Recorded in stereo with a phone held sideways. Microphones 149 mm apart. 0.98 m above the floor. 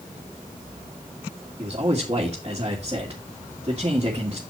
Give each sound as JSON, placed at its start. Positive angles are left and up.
{"t": 1.6, "sound": "a man speaking", "side_deg": -35, "distance_m": 2.0}